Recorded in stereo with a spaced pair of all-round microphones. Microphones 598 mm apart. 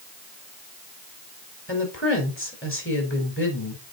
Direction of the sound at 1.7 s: 20° left (ahead or behind).